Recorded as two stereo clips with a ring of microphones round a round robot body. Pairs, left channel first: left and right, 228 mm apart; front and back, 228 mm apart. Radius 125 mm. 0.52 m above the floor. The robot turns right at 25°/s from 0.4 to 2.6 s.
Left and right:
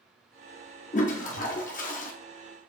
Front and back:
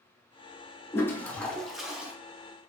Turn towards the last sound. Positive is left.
turn(degrees=115)